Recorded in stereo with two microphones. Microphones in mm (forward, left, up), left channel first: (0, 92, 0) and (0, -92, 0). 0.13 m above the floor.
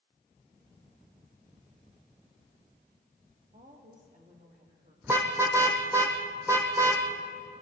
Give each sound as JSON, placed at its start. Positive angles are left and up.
{"t": 3.5, "sound": "a woman speaking", "side_deg": -45, "distance_m": 5.0}
{"t": 5.0, "sound": "a car horn", "side_deg": -15, "distance_m": 2.5}